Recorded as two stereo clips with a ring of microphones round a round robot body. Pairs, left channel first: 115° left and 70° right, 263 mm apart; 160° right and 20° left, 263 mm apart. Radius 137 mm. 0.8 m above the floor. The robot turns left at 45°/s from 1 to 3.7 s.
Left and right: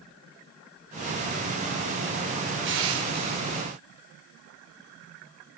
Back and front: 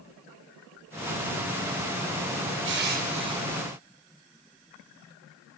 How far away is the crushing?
About 3 m.